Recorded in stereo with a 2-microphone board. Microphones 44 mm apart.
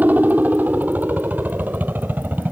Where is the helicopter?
40° right (ahead or behind); by 2.5 s 45° right (ahead or behind).